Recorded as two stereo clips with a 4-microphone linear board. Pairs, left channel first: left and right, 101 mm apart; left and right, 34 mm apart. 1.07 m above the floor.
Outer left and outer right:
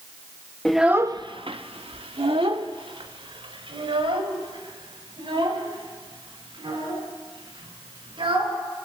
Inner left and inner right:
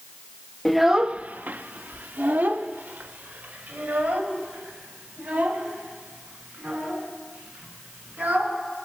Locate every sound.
0.7 s a child speaking: 5° left (ahead or behind), 0.6 m; by 8.5 s 65° right (ahead or behind), 8.5 m